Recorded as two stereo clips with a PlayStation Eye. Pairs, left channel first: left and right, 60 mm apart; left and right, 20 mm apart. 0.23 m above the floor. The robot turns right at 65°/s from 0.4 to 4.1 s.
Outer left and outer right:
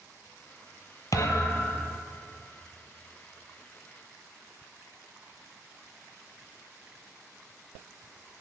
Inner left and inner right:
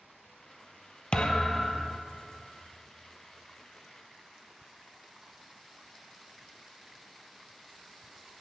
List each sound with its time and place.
1.1 s a thud: 110° left, 0.7 m; by 2.0 s 165° left, 0.7 m